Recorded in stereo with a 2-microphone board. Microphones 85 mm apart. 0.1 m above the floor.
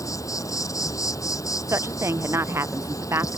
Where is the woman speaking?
30° right (ahead or behind).